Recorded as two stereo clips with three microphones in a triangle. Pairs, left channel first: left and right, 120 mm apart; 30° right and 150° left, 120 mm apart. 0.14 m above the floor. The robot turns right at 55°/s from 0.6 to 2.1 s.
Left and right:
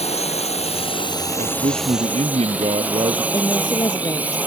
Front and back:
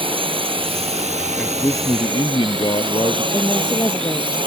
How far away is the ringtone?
No ringtone in this recording.